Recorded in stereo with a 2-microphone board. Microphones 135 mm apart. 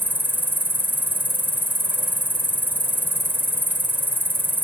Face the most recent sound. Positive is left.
turn(degrees=-15)  # may be behind; listen again after turning